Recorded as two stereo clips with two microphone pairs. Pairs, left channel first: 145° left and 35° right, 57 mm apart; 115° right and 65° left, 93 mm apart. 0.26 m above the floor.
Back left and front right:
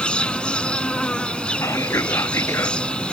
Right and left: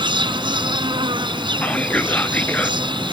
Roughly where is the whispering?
Behind.